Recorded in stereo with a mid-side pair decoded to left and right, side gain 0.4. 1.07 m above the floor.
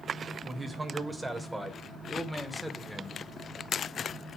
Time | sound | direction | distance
0.4 | a man speaking | 30° right | 4 m